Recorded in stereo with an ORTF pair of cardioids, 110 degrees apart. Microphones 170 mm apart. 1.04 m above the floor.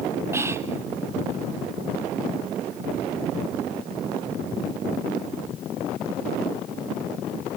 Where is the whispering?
15° right, 0.9 m.